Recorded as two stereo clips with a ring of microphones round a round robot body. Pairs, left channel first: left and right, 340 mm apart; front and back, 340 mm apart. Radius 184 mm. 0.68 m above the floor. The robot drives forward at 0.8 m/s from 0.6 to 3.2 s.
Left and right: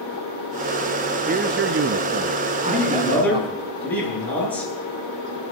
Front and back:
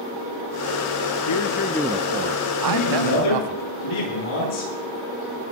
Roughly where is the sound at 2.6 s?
Ahead.